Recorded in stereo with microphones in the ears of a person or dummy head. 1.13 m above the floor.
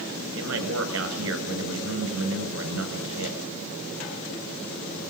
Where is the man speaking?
85° right, 5.5 m.